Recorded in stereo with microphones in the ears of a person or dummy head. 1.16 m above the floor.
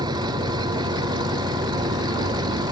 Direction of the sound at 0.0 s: 25° right (ahead or behind).